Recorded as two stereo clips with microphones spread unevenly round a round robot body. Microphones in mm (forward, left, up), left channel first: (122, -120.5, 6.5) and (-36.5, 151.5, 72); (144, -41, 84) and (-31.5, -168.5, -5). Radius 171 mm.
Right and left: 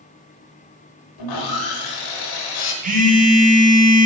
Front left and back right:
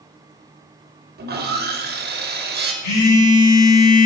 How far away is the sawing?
About 1.0 m.